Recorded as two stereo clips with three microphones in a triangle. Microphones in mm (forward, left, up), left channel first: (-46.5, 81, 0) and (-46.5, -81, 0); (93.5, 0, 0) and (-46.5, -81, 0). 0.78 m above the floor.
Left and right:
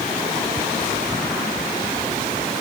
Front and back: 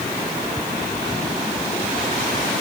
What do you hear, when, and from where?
Only background noise.